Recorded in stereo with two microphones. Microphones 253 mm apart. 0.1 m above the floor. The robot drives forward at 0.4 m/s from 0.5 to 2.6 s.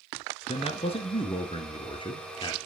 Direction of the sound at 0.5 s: 25° left (ahead or behind).